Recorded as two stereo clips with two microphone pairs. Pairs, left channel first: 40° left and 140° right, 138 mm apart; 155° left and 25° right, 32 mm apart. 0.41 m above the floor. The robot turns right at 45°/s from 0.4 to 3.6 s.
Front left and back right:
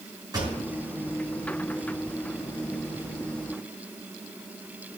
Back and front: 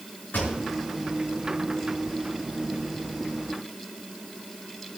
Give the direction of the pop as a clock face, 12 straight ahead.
7 o'clock.